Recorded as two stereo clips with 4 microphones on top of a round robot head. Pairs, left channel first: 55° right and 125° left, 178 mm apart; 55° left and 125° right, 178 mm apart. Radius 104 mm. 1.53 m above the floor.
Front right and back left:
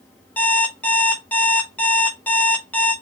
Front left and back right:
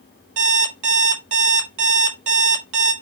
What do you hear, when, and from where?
0.4 s an alarm clock: 135° right, 1.1 m